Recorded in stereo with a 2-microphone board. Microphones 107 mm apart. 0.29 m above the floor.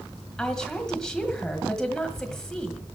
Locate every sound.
0.4 s a woman speaking: 5° left (ahead or behind), 1.6 m